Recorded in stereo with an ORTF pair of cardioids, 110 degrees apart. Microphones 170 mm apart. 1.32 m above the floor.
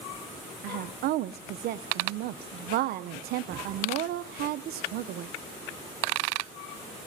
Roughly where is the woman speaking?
Ahead right.